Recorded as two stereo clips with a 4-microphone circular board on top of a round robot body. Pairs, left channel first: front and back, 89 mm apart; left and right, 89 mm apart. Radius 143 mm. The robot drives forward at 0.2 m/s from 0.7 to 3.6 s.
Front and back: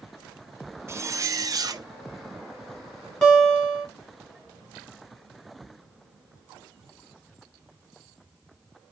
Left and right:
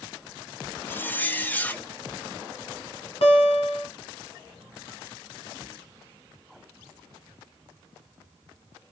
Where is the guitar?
85° left, 1.2 m; by 3.9 s 90° left, 1.2 m.